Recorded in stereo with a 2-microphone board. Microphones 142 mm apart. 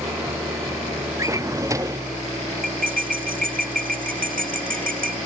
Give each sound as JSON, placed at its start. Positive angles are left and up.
{"t": 0.0, "sound": "an engine running", "side_deg": -20}
{"t": 1.2, "sound": "a drawer", "side_deg": -25}
{"t": 2.6, "sound": "cutlery clinking", "side_deg": -80}